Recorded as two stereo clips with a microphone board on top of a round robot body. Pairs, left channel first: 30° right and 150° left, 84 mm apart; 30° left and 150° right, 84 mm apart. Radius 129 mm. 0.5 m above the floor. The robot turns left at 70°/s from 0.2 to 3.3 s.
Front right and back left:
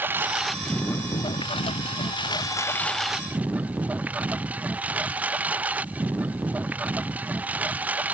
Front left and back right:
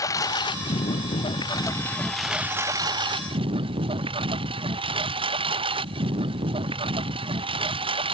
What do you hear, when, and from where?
0.0 s a lawn mower: 80° left; by 8.1 s 135° right